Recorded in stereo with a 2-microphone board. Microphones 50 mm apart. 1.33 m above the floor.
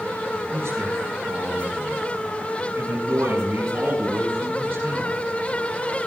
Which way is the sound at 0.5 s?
60° right (ahead or behind).